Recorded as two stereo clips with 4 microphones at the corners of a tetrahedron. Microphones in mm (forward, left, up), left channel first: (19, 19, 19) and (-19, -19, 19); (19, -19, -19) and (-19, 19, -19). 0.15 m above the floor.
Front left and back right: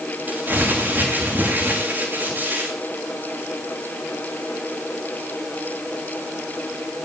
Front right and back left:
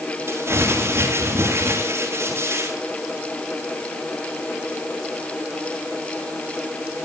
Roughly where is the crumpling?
Behind.